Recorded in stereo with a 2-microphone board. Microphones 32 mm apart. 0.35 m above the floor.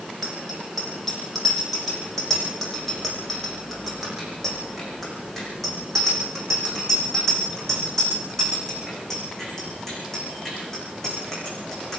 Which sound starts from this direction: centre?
A bicycle bell, at 0.2 s.